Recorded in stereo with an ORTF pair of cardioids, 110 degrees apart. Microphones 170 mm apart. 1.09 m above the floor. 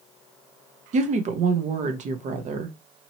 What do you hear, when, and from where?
0.9 s a woman speaking: 45° right, 0.8 m